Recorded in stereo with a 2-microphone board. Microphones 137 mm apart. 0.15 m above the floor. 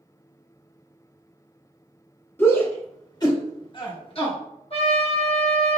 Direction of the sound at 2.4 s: 15° left (ahead or behind).